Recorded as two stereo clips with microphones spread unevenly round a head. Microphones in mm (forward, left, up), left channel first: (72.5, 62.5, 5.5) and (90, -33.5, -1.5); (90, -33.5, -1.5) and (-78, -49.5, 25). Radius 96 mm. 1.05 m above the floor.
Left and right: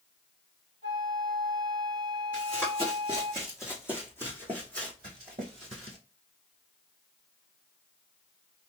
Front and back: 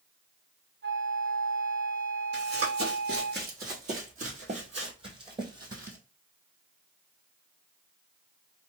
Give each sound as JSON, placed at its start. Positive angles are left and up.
{"t": 0.8, "sound": "a flute", "azimuth_deg": 150, "distance_m": 0.8}
{"t": 2.3, "sound": "running footsteps", "azimuth_deg": 175, "distance_m": 2.0}